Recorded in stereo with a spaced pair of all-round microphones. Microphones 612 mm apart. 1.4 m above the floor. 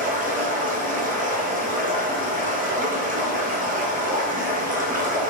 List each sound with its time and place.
0.0 s running water: 15° right (ahead or behind), 0.7 m